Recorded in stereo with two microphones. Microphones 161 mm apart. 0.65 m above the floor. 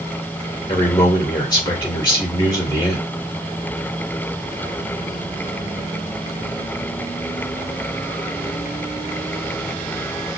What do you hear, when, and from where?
0.7 s a man speaking: 25° left (ahead or behind), 2.5 m